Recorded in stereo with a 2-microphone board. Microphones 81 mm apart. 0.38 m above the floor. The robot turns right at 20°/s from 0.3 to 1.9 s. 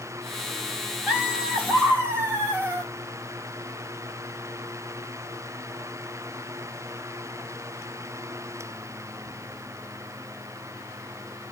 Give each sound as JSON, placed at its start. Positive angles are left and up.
{"t": 1.1, "sound": "laughter", "side_deg": -15, "distance_m": 1.5}